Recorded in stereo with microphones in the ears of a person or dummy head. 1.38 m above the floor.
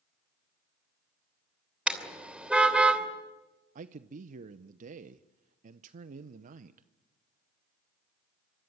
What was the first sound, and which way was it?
A car horn, centre (ahead or behind).